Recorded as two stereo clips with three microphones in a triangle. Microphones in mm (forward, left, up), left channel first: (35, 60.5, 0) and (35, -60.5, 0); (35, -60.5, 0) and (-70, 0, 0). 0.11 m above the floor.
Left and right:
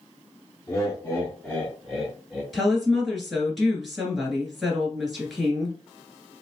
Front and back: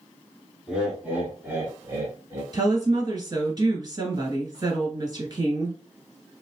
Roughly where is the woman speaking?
Behind.